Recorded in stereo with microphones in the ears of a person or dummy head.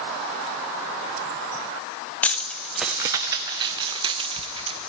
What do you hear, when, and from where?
2.2 s keys jangling: 5° left (ahead or behind), 0.7 m; by 4.9 s 30° right (ahead or behind), 1.2 m